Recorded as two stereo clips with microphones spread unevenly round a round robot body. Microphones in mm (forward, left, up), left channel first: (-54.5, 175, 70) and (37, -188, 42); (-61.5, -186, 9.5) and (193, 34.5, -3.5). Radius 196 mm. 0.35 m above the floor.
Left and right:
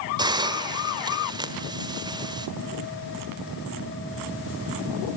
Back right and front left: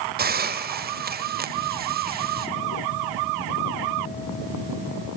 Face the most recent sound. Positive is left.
turn(degrees=-5)